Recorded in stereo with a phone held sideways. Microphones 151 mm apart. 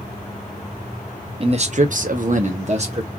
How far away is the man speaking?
About 0.6 m.